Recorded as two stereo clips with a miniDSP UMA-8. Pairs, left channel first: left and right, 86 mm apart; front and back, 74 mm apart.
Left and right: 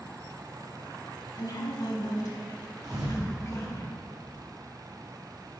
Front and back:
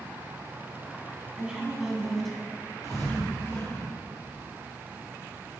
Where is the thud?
45° right, 1.8 m.